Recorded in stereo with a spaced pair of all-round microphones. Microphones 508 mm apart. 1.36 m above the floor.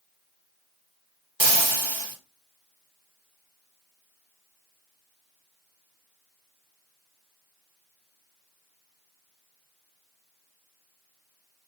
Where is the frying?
55° right (ahead or behind), 0.9 m.